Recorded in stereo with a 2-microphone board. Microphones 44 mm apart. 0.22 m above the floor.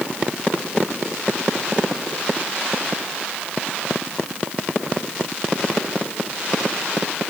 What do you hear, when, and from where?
Only background noise.